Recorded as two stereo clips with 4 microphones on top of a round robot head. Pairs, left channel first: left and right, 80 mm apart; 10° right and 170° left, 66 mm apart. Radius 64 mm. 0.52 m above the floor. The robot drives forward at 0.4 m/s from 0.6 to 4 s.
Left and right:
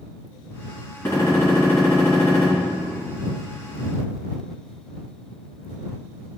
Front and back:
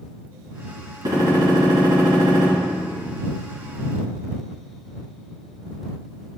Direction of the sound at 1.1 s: 150° left.